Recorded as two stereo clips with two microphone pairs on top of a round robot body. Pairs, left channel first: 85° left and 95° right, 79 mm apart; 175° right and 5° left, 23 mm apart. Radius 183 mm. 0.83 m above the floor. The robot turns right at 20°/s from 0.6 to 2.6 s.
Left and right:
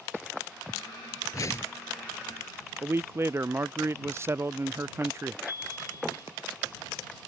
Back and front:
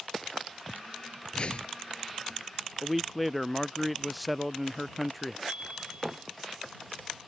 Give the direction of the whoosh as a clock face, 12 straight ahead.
7 o'clock.